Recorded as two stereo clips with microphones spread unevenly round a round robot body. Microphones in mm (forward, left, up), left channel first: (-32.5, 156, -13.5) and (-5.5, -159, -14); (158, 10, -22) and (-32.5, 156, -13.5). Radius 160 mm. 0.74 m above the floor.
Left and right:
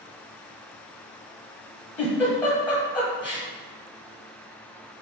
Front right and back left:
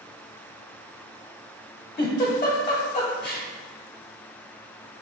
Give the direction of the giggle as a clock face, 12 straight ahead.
12 o'clock.